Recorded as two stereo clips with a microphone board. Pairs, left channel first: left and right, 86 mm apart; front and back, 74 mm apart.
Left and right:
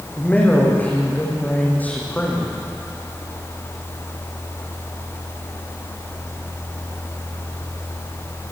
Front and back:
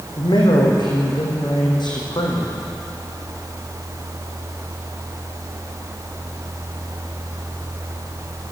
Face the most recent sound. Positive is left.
turn(degrees=20)